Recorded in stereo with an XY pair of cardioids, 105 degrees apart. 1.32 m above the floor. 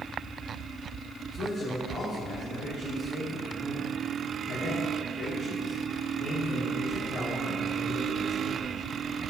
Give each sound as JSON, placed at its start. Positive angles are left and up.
{"t": 1.3, "sound": "a man speaking", "azimuth_deg": 50, "distance_m": 3.5}